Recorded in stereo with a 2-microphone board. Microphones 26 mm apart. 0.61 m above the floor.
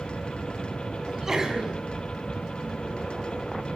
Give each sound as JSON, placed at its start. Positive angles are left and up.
{"t": 1.0, "sound": "a sneeze", "side_deg": -20, "distance_m": 5.5}